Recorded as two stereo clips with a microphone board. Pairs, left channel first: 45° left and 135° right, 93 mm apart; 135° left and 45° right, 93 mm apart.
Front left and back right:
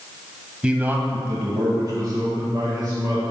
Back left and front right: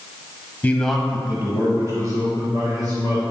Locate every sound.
0.6 s a man speaking: 165° left, 1.1 m; by 3.2 s 85° right, 3.5 m